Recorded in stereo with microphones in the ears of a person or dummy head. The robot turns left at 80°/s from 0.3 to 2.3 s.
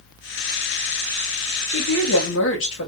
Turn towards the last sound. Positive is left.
turn(degrees=75)